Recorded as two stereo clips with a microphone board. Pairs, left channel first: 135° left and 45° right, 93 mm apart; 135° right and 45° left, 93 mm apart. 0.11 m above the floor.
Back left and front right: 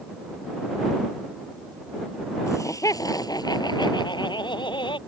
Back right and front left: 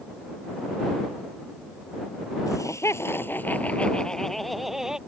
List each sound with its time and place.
2.5 s laughter: 175° right; by 5.0 s 130° left